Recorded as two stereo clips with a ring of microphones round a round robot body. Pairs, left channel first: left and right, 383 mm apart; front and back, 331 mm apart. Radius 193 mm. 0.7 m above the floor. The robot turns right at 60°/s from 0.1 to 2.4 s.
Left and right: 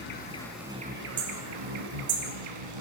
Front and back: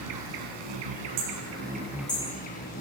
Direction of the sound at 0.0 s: 155° left.